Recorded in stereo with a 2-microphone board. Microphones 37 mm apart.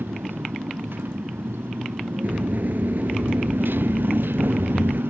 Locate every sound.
0.0 s a motorcycle: 85° right
2.2 s a sliding door: 60° right (ahead or behind)